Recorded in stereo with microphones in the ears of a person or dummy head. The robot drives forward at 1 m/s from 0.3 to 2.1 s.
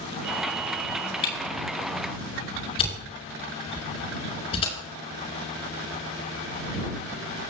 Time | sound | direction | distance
1.2 | a camera shutter | 25° left (ahead or behind) | 6 m